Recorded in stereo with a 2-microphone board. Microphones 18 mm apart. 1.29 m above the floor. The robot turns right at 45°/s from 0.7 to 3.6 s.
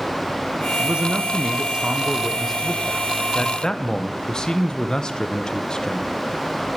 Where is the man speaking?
85° right, 0.7 m; by 6.1 s 40° left, 0.7 m.